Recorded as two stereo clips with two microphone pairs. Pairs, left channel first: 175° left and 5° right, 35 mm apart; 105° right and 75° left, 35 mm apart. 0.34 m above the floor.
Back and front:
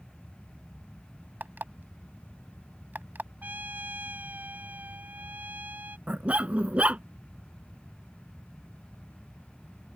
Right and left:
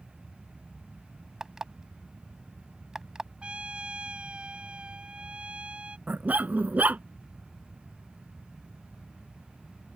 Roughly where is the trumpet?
Ahead.